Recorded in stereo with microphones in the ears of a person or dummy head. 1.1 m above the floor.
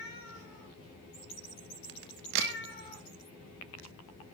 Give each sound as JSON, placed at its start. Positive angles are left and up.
{"t": 1.9, "sound": "a crack", "side_deg": -65, "distance_m": 1.4}